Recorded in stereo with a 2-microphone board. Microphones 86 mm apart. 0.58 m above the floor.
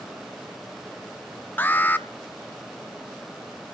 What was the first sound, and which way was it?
An alarm, 25° left (ahead or behind).